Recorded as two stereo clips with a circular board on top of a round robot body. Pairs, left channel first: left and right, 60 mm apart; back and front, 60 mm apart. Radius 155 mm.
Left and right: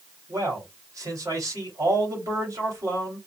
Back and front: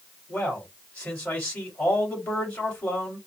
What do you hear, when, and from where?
0.3 s a man speaking: 120° right, 2.5 m